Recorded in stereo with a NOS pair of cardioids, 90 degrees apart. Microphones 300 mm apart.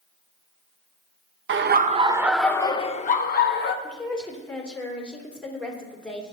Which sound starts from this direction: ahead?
A woman speaking, at 3.8 s.